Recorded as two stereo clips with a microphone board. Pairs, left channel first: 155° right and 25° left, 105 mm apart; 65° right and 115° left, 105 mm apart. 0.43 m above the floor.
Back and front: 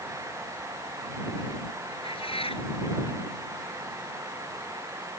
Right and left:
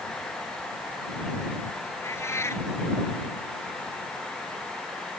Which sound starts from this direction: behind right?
A cat meowing, at 2.0 s.